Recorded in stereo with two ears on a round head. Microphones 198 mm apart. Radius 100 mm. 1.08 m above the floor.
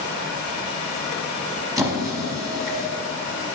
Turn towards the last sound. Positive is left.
turn(degrees=-15)  # may be behind; listen again after turning